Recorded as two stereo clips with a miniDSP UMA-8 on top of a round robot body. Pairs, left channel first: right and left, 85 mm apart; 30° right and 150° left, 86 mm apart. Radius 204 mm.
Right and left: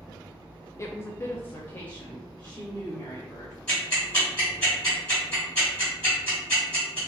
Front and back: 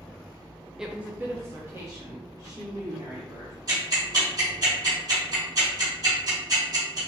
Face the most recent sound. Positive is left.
turn(degrees=-165)